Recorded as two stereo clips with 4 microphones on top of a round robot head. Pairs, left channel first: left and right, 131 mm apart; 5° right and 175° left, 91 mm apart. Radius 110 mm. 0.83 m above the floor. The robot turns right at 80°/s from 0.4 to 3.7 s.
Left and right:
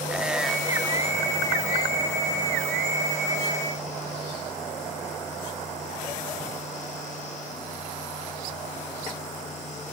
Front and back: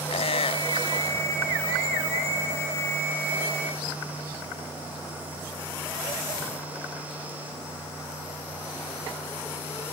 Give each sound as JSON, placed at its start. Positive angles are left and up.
{"t": 0.1, "sound": "a squeak", "azimuth_deg": -5}